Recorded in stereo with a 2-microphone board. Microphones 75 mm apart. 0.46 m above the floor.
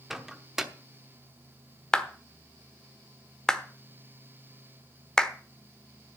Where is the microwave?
5° right (ahead or behind), 0.9 m.